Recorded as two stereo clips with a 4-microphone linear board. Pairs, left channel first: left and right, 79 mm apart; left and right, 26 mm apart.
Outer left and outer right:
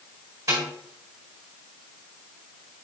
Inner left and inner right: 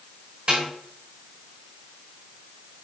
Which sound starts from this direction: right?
A snare drum, at 0.5 s.